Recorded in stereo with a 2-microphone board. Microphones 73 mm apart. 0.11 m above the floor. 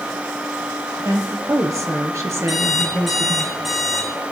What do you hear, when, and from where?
1.1 s a woman speaking: 50° right (ahead or behind), 2.5 m; by 3.5 s 25° right (ahead or behind), 2.5 m
2.5 s an alarm clock: centre (ahead or behind), 4 m